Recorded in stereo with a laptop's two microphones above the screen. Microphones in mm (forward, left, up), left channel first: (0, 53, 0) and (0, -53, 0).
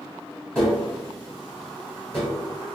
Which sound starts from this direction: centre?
Tapping, at 0.6 s.